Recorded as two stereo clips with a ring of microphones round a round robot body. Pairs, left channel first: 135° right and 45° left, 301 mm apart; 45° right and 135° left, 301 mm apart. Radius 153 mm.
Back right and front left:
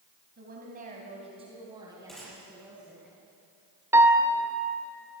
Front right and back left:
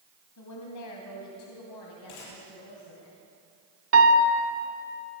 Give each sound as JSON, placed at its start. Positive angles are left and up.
{"t": 0.4, "sound": "a woman speaking", "azimuth_deg": -15, "distance_m": 2.5}
{"t": 2.1, "sound": "a gunshot", "azimuth_deg": -45, "distance_m": 8.0}
{"t": 3.9, "sound": "a piano", "azimuth_deg": 125, "distance_m": 1.5}